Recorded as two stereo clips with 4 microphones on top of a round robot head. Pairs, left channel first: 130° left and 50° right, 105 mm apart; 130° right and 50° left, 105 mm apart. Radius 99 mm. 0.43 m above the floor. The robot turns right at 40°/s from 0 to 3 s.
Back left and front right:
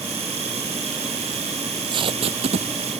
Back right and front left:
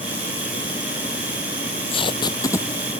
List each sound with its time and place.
1.6 s tape being pulled: 105° right; by 2.9 s 55° right